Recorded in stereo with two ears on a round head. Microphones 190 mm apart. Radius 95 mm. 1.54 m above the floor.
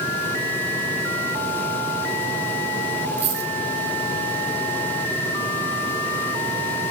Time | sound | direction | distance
3.2 | a dropped coin | 30° right (ahead or behind) | 3 m